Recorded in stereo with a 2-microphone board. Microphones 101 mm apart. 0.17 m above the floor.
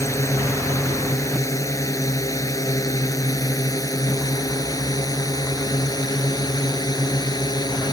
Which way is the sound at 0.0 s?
30° left (ahead or behind).